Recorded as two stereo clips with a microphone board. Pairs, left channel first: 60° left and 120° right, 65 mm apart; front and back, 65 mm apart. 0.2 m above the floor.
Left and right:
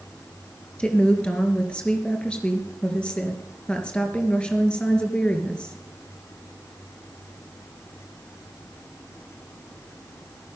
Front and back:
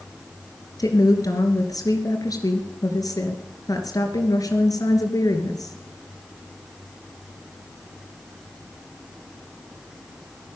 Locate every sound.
0.8 s a woman speaking: 15° right, 3 m